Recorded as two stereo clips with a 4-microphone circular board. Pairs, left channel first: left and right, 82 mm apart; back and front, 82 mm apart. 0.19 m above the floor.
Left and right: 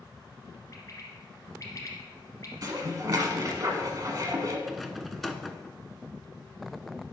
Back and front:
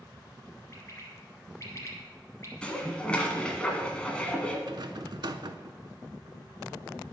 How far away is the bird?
About 1.5 m.